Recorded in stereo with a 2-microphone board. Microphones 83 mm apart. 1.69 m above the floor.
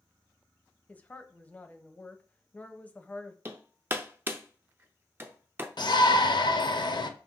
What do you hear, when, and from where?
0.9 s a woman speaking: 20° left (ahead or behind), 0.6 m
3.5 s hammering: 25° right (ahead or behind), 0.5 m
5.8 s a shout: 60° left (ahead or behind), 0.7 m